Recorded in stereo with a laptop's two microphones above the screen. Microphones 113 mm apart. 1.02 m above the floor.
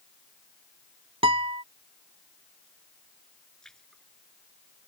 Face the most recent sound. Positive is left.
turn(degrees=5)  # may be behind; listen again after turning